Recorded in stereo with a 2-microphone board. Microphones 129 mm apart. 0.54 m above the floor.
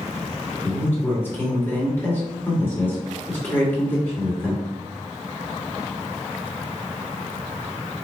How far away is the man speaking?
About 1.8 m.